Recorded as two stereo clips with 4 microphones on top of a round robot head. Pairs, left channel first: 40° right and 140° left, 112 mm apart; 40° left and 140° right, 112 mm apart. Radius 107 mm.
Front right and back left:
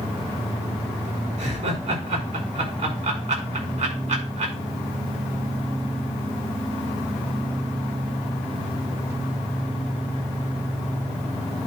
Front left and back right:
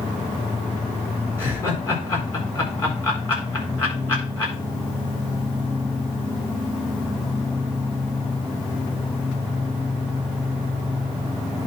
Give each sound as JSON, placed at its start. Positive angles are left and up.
{"t": 1.4, "sound": "laughter", "azimuth_deg": 115, "distance_m": 8.0}